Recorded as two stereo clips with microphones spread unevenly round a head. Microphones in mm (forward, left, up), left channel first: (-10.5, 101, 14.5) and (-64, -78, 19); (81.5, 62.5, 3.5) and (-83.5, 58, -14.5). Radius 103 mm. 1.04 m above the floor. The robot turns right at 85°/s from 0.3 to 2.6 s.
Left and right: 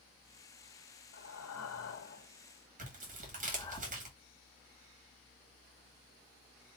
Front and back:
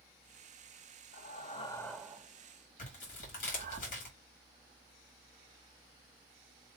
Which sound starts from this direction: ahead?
Breathing, at 1.1 s.